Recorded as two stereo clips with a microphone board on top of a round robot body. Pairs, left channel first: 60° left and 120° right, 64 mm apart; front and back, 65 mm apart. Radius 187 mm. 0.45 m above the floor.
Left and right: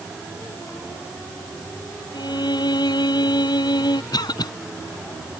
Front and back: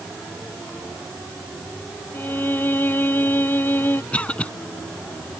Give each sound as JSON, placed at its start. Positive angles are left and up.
{"t": 2.1, "sound": "a violin", "azimuth_deg": 65}
{"t": 4.1, "sound": "a cough", "azimuth_deg": 75}